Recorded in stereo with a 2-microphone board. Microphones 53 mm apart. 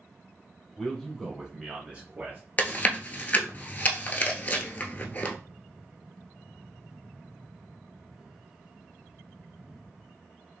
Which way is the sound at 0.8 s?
10° left (ahead or behind).